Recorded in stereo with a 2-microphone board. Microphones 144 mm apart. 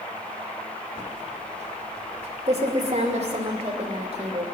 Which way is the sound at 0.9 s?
45° right (ahead or behind).